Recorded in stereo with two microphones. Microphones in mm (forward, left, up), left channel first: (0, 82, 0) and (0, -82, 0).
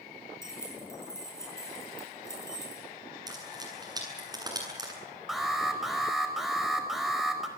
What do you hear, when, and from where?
0.4 s keys jangling: 15° left (ahead or behind), 7.5 m
3.3 s frying: 25° right (ahead or behind), 8.5 m
5.3 s an alarm: centre (ahead or behind), 4.5 m